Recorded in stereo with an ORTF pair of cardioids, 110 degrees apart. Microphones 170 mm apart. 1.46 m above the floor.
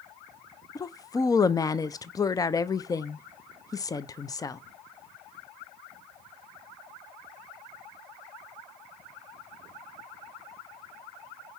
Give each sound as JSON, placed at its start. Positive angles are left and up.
{"t": 0.8, "sound": "a woman speaking", "azimuth_deg": 20, "distance_m": 0.5}